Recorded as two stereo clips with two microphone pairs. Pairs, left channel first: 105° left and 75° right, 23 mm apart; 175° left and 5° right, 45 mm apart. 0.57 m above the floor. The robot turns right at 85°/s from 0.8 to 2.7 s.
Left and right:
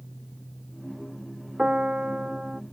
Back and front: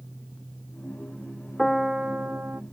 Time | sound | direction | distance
1.6 | a piano | 100° right | ?